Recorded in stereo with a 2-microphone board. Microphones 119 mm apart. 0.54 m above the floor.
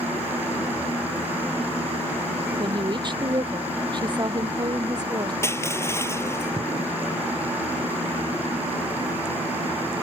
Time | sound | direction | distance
2.6 | a woman speaking | 40° right (ahead or behind) | ?
5.4 | crushing | 20° left (ahead or behind) | ?